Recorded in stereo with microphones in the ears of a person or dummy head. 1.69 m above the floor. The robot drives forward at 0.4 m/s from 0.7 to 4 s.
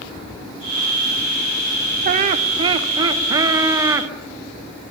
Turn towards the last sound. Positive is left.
turn(degrees=-20)  # may be behind; listen again after turning